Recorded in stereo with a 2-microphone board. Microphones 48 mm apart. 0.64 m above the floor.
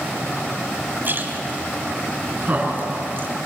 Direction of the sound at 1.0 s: 45° right (ahead or behind).